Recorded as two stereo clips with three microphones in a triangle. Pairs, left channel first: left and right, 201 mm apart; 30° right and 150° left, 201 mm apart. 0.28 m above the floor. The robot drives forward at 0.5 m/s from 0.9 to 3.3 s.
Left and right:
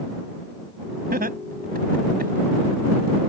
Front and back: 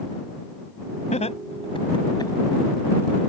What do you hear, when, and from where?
1.1 s laughter: 75° right; by 2.3 s 95° right